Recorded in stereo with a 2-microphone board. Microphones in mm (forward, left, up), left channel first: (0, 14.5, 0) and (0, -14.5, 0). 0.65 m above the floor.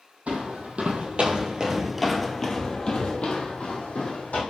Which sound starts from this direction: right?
Footsteps, at 0.3 s.